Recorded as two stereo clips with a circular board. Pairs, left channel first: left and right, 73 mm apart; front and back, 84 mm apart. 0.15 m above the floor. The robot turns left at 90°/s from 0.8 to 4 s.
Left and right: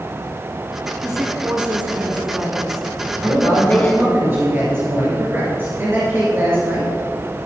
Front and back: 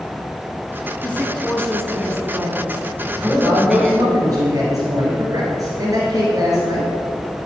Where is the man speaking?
65° right, 2.5 m; by 6.9 s 145° right, 2.5 m.